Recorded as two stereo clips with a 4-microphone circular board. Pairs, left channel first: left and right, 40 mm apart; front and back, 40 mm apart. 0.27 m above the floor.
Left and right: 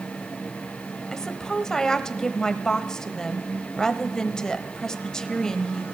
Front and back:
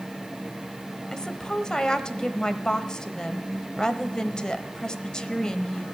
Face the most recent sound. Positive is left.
turn(degrees=40)